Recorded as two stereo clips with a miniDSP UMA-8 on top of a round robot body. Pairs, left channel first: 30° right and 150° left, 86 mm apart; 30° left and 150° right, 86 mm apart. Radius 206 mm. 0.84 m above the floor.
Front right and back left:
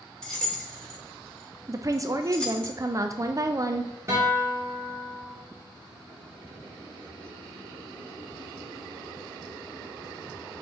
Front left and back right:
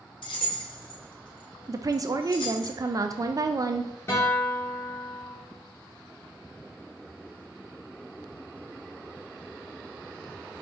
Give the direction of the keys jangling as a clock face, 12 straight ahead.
10 o'clock.